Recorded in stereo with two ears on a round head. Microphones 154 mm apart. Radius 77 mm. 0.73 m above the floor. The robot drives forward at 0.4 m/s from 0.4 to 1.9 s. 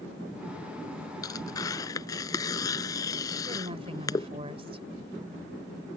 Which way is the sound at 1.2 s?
20° left (ahead or behind).